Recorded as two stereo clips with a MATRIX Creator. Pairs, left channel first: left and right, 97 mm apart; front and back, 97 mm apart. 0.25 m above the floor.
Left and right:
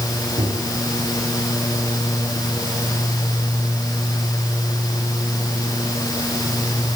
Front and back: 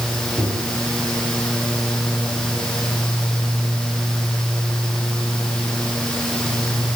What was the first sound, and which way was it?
A microwave, 75° right.